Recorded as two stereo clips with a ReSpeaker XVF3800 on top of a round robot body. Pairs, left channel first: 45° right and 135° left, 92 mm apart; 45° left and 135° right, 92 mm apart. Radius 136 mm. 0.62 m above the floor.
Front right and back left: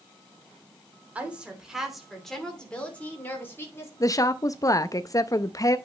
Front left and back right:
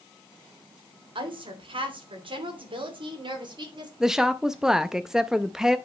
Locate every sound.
1.1 s a woman speaking: 150° right, 3 m; by 3.9 s 105° right, 3 m
4.0 s a woman speaking: 55° right, 0.6 m